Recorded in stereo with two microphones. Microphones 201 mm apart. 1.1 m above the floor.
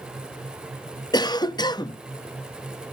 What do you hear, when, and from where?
1.1 s a cough: 20° left (ahead or behind), 0.5 m